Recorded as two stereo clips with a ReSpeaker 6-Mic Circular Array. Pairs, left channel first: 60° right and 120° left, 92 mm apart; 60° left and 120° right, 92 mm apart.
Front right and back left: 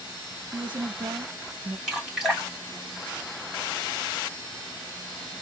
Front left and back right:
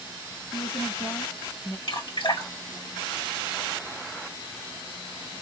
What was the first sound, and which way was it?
A woman speaking, 120° left.